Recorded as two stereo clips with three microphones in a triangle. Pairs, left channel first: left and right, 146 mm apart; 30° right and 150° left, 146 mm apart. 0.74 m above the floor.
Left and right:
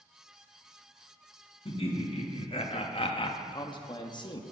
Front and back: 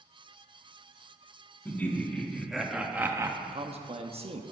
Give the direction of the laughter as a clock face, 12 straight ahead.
10 o'clock.